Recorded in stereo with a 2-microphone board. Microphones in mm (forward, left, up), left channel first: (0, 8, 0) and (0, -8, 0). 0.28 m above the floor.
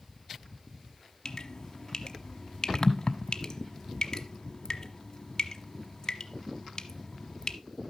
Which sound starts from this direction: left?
Dripping, at 1.2 s.